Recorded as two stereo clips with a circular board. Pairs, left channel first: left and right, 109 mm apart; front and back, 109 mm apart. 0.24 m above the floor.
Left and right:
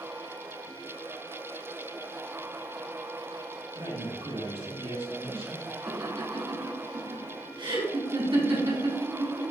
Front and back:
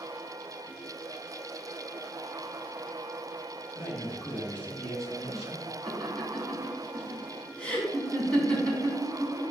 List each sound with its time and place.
3.7 s a man speaking: 55° right, 3 m; by 5.7 s 95° right, 3.5 m
5.9 s laughter: 80° right, 2.5 m